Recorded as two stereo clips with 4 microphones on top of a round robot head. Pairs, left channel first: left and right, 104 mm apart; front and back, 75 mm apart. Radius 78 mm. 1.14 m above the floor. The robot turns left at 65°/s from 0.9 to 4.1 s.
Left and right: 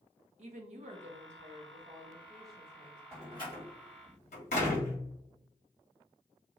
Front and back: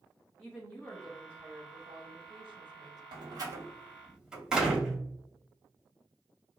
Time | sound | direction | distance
0.4 | a woman speaking | 80° right | 0.7 m
3.1 | a door slam | 165° left | 1.5 m